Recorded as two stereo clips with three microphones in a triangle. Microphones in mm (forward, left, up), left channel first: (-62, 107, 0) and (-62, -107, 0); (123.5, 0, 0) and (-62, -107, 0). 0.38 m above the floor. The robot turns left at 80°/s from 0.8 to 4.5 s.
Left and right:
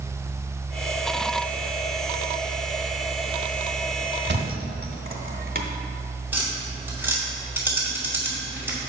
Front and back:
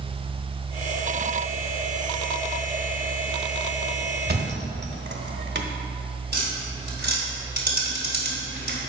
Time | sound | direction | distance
4.3 | a thud | 110° right | 0.9 m
6.3 | tapping | 170° right | 2 m